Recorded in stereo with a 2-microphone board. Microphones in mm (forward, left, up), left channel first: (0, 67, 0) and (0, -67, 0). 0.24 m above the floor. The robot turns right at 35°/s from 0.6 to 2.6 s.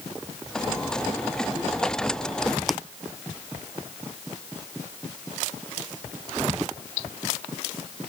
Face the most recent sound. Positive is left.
turn(degrees=0)  # may be behind; listen again after turning